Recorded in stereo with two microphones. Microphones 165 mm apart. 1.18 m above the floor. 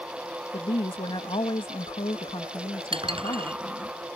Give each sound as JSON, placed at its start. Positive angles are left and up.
{"t": 0.5, "sound": "a woman speaking", "side_deg": 35}
{"t": 2.9, "sound": "dishes clattering", "side_deg": -35}